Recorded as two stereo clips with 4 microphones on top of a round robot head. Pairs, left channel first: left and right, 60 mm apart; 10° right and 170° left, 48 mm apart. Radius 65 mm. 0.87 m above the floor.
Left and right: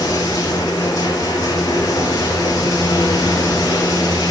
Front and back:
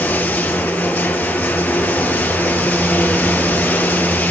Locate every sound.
0.0 s running water: 45° left, 1.5 m